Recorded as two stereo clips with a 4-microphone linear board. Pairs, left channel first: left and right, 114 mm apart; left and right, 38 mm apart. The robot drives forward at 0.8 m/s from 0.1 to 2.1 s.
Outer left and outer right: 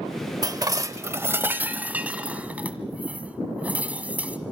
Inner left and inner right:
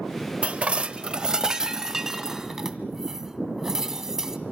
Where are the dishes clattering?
35° right (ahead or behind), 0.6 m; by 4.4 s 15° right (ahead or behind), 1.4 m.